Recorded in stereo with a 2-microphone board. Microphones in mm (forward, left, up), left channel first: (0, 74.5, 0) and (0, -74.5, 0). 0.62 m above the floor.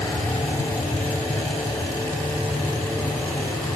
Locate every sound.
0.0 s an aircraft: 20° left (ahead or behind); by 3.8 s 10° left (ahead or behind)